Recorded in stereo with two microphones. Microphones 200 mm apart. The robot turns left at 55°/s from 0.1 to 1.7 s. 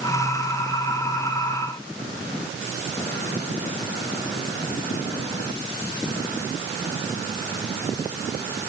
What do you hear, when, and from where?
Only background noise.